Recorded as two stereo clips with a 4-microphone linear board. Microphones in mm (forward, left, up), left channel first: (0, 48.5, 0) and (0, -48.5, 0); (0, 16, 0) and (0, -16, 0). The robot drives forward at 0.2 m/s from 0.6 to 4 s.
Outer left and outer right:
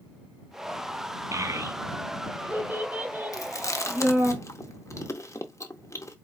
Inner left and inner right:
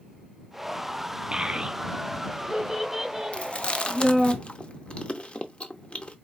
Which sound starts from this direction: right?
A child speaking, at 1.3 s.